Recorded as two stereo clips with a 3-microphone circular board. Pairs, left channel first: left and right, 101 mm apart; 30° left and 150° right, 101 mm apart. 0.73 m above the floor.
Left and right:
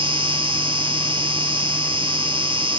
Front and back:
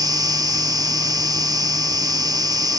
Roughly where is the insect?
Right.